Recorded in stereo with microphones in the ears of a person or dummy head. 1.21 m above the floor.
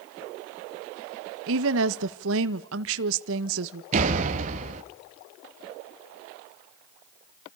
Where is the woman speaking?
70° right (ahead or behind), 1.4 m.